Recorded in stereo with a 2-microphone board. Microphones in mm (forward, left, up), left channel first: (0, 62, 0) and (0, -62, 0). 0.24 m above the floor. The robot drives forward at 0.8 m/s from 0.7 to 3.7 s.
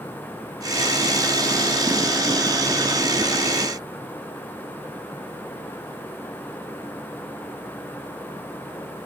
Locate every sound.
Only background noise.